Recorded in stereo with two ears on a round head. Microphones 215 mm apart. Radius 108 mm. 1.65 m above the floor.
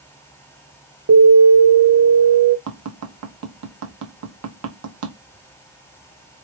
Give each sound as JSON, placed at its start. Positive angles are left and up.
{"t": 1.1, "sound": "an alarm", "side_deg": -70, "distance_m": 0.9}
{"t": 2.7, "sound": "tapping", "side_deg": -75, "distance_m": 1.2}